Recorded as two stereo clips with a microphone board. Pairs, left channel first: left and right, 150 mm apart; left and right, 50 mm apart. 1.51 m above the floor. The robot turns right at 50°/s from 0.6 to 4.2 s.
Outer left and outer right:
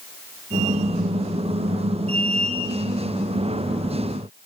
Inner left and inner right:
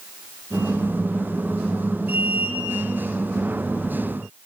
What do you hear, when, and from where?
Only background noise.